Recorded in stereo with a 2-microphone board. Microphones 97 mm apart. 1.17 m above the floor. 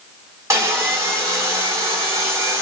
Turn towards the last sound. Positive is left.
turn(degrees=-30)  # may be behind; listen again after turning